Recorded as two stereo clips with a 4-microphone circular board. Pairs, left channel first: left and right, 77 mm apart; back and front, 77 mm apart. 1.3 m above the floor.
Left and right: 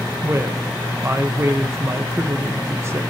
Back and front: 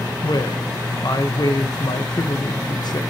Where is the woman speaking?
150° right, 0.9 m.